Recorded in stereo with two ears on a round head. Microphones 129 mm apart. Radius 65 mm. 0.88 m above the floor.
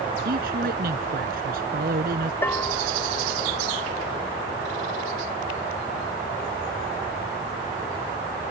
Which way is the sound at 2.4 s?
15° left (ahead or behind).